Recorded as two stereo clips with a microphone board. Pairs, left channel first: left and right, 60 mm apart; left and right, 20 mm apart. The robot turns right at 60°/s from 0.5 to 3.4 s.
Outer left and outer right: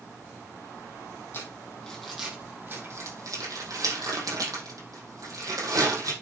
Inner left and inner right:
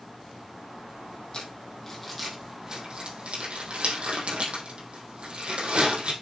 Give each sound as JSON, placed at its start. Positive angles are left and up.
{"t": 1.3, "sound": "crumpling", "side_deg": 45, "distance_m": 5.0}